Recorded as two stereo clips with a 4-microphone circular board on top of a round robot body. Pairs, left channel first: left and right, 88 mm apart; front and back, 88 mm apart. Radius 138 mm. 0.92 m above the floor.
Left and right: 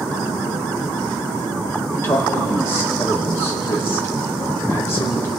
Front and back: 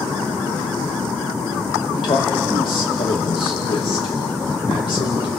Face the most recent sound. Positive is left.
turn(degrees=30)